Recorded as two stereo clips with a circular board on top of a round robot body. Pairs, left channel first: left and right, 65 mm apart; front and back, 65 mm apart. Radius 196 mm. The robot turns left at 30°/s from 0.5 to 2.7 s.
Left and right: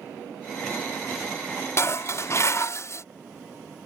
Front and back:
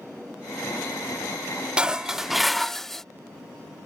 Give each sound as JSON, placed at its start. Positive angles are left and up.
{"t": 1.8, "sound": "dishes clattering", "azimuth_deg": 110}